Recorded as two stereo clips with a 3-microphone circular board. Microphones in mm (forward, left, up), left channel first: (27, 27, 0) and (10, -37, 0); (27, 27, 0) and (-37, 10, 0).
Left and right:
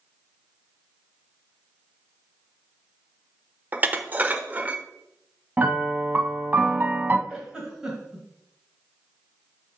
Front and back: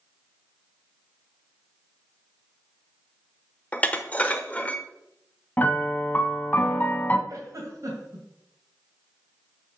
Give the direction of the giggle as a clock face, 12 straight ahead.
6 o'clock.